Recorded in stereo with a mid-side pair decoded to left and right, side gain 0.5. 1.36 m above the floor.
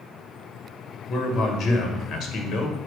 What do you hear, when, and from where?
1.1 s a man speaking: 65° left, 1.6 m